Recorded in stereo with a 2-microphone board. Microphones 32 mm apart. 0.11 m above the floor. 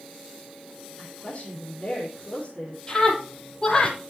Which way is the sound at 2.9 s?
25° left (ahead or behind).